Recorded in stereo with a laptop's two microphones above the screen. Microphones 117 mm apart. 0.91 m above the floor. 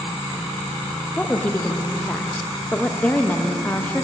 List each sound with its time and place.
1.2 s a woman speaking: 15° left (ahead or behind), 0.7 m